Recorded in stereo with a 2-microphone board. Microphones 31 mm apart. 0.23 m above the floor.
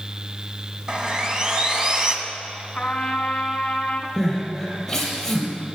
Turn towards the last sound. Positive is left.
turn(degrees=5)  # may be behind; listen again after turning